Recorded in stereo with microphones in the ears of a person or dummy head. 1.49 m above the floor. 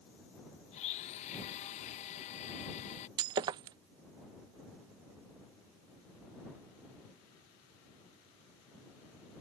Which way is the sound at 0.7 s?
35° left (ahead or behind).